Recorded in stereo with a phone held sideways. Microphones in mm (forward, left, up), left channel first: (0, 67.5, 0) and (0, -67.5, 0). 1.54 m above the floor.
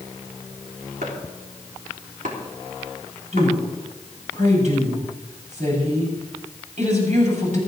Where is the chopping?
85° right, 3.5 m.